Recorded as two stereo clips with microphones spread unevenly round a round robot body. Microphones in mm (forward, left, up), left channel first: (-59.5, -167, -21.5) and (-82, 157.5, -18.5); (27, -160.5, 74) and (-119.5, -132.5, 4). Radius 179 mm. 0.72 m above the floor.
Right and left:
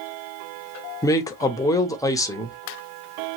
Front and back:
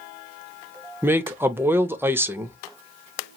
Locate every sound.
1.0 s a man speaking: 160° right, 0.6 m